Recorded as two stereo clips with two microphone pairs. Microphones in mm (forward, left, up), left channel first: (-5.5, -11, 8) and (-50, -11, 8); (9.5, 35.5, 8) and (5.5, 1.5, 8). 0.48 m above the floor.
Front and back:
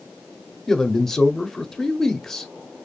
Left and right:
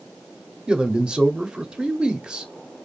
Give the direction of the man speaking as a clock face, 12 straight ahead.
2 o'clock.